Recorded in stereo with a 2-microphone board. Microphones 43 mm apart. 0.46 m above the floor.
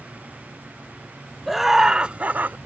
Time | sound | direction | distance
1.5 | laughter | centre (ahead or behind) | ?